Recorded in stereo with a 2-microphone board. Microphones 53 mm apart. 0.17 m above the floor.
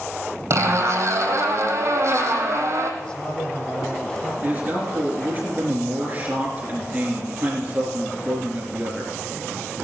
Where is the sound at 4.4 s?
30° right (ahead or behind), 3.5 m.